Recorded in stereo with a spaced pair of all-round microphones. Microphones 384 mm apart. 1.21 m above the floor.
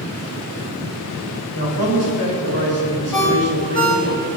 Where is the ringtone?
60° left (ahead or behind), 5 m.